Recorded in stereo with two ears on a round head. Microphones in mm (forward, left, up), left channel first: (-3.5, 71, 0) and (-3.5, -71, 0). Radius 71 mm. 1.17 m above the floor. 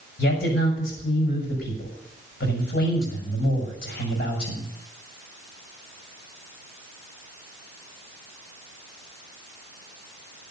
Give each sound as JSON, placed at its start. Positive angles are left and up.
{"t": 0.2, "sound": "a man speaking", "side_deg": 65, "distance_m": 6.0}